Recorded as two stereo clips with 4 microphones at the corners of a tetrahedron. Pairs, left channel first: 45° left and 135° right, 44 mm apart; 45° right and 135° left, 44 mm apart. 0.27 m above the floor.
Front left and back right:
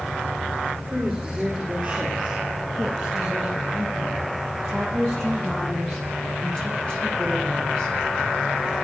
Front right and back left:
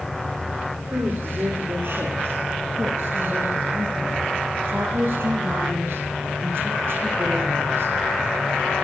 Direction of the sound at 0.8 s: 145° left.